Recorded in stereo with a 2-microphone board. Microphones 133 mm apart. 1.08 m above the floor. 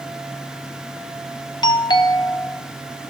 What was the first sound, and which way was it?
A doorbell, 30° left (ahead or behind).